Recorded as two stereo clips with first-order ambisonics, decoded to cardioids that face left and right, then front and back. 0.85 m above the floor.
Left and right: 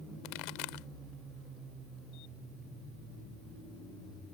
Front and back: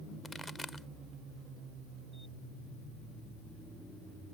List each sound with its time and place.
0.2 s a pop: 85° left